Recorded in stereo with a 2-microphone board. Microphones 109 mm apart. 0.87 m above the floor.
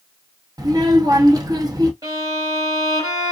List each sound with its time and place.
0.6 s a child speaking: 35° right (ahead or behind), 0.9 m
2.0 s a violin: 35° right (ahead or behind), 1.5 m